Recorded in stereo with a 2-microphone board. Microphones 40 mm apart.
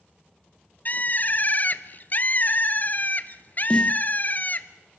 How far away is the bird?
About 0.9 m.